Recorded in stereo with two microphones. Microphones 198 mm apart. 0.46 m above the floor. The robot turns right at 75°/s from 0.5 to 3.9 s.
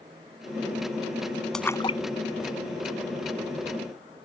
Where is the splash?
Centre (ahead or behind); by 3.5 s 30° left (ahead or behind).